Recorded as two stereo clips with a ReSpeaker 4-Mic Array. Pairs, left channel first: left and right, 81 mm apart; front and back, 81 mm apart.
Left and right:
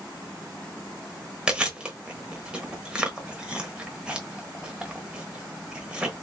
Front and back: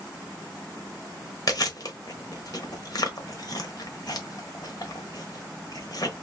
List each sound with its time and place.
1.5 s chewing: 15° right, 1.0 m